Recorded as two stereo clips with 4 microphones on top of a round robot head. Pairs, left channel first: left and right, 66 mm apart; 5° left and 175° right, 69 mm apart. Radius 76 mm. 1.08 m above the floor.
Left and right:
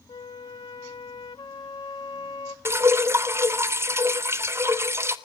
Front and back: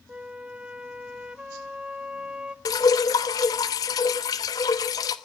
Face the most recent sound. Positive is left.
turn(degrees=-40)